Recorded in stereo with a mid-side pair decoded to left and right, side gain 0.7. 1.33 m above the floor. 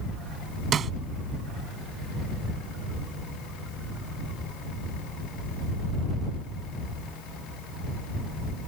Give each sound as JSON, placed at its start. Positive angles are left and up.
{"t": 0.7, "sound": "a snare drum", "azimuth_deg": -35}